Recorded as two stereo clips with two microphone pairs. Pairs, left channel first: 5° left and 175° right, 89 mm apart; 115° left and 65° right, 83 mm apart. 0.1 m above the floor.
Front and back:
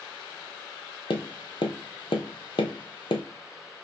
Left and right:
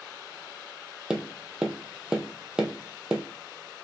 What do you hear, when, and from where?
1.1 s tapping: 15° left, 0.6 m